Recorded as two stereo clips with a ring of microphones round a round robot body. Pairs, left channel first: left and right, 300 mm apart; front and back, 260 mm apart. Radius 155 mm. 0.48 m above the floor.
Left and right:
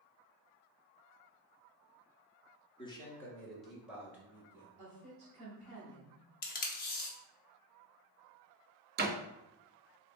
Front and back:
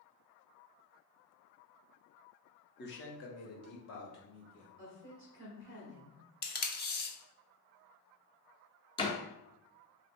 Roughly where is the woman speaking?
Ahead right.